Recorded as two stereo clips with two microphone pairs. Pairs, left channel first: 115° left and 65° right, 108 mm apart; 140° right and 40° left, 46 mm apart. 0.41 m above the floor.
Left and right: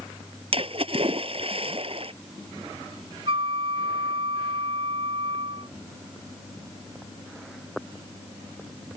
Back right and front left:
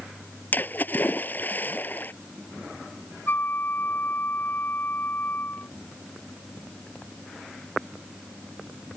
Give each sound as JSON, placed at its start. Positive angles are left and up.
{"t": 0.5, "sound": "a splash", "azimuth_deg": -90}
{"t": 3.3, "sound": "a flute", "azimuth_deg": -95}